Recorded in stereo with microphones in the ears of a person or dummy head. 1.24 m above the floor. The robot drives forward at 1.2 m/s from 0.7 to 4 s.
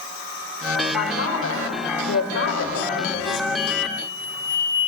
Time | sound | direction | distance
0.9 | a man speaking | 85° left | 5 m
3.6 | an explosion | 60° left (ahead or behind) | 4 m